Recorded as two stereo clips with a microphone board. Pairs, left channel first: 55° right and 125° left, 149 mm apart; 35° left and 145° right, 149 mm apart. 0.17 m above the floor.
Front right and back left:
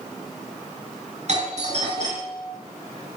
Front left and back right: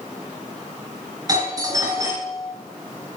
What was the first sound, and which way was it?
A doorbell, 150° left.